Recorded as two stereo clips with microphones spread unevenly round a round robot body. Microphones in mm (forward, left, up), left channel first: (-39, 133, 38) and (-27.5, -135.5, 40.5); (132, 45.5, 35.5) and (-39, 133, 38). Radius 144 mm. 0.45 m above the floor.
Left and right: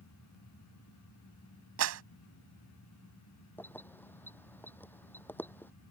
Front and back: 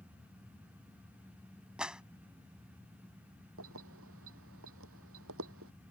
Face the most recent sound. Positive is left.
turn(degrees=175)